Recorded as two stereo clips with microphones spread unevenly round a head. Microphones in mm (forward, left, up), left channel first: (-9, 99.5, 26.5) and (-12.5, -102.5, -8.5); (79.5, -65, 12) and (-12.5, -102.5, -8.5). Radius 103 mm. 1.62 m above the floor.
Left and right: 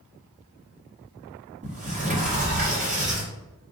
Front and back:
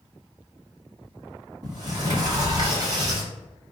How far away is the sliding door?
About 1.1 m.